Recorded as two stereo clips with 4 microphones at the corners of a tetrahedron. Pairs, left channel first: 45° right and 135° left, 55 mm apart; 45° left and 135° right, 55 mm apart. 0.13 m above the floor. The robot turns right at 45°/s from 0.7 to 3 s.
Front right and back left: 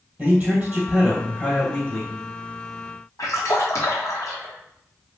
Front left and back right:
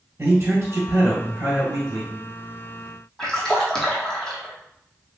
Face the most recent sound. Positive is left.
turn(degrees=-30)